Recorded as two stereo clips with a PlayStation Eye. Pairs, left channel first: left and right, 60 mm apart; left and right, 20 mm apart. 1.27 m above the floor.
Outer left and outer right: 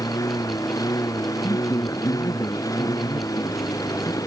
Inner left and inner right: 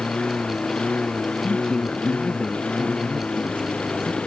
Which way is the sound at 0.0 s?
75° left (ahead or behind).